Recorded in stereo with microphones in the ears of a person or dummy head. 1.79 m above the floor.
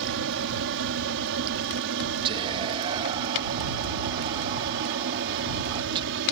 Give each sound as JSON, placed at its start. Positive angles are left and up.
{"t": 0.0, "sound": "an aircraft", "side_deg": -60}
{"t": 2.2, "sound": "whispering", "side_deg": -25}